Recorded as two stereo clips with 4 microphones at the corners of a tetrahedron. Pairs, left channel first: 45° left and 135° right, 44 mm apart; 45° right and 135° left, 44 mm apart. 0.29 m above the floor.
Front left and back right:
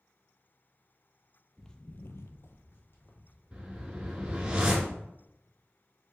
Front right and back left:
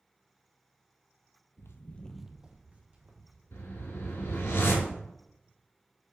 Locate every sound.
1.6 s footsteps: 35° right, 0.6 m; by 4.5 s 95° left, 3 m
3.5 s a whoosh: 65° right, 1.1 m